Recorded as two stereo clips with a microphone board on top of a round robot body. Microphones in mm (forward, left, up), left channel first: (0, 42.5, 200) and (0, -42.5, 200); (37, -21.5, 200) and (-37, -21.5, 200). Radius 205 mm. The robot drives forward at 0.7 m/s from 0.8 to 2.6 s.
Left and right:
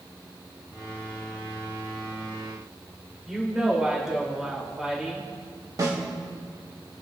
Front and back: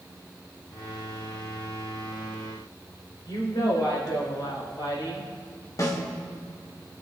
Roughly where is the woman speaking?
Ahead.